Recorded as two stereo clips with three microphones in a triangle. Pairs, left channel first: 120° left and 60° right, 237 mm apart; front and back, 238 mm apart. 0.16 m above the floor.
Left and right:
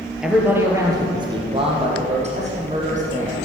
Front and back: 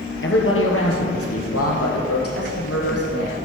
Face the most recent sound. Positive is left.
turn(degrees=-5)